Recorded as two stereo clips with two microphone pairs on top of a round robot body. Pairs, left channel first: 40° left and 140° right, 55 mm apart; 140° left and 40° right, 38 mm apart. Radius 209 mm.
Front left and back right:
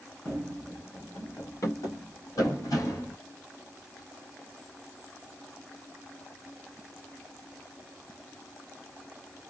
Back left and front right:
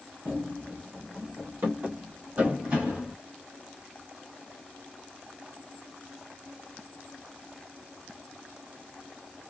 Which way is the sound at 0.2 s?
40° right.